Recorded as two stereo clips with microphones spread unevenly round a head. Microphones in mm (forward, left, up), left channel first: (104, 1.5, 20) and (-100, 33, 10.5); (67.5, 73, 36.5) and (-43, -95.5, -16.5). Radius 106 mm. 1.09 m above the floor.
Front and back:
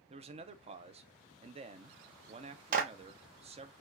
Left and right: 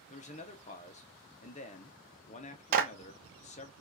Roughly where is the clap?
Behind right.